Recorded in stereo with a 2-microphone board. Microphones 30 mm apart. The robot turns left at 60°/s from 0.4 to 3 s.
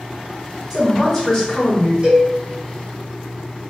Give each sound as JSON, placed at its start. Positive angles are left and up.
{"t": 0.7, "sound": "a man speaking", "azimuth_deg": -150, "distance_m": 1.6}
{"t": 2.0, "sound": "a cowbell", "side_deg": -35, "distance_m": 1.8}